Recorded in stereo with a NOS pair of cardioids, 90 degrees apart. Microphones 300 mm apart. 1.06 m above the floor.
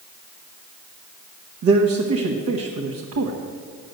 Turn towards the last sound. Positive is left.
turn(degrees=-60)